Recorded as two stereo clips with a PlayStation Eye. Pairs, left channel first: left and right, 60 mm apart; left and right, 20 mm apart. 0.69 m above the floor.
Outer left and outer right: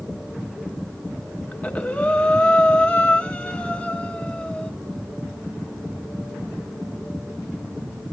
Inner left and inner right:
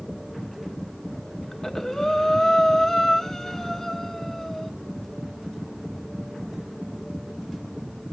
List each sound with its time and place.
1.5 s breathing: 20° left (ahead or behind), 1.3 m